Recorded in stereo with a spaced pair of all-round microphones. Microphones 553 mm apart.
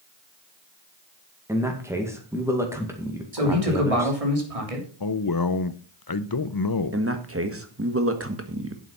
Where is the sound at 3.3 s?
75° right (ahead or behind), 3 m.